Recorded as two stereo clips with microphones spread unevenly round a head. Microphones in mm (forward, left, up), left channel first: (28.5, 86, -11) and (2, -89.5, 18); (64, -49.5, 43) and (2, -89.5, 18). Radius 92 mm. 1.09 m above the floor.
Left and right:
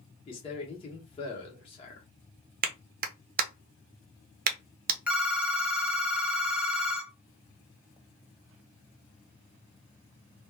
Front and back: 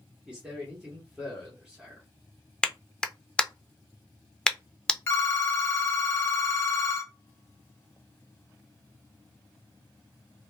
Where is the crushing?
I don't hear crushing.